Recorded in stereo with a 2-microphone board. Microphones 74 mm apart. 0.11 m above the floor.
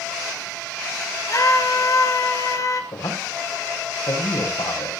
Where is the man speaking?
70° left (ahead or behind), 7 m.